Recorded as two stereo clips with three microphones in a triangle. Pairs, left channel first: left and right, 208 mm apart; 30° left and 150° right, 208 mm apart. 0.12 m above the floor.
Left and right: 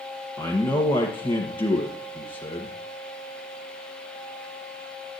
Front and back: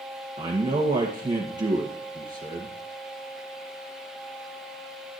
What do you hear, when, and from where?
0.4 s a man speaking: 150° left, 2.5 m